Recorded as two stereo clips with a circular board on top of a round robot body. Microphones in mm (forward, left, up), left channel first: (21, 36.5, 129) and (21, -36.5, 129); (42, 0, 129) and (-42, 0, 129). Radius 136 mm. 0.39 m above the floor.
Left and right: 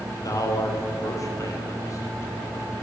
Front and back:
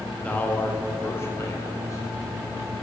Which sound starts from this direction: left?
A man speaking, at 0.2 s.